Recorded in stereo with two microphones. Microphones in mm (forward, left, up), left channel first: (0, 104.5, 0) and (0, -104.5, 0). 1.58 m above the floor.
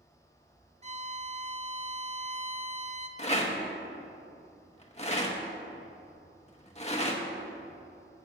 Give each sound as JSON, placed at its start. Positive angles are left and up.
{"t": 0.8, "sound": "a violin", "side_deg": -30, "distance_m": 0.5}
{"t": 3.2, "sound": "a rattle", "side_deg": 30, "distance_m": 0.9}